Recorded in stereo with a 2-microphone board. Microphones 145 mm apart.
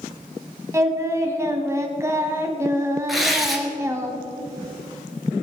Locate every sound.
0.7 s singing: 20° right (ahead or behind), 1.4 m
3.1 s tearing paper: centre (ahead or behind), 2 m